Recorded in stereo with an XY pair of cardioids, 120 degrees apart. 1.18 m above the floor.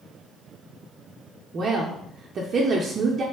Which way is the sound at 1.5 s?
40° right.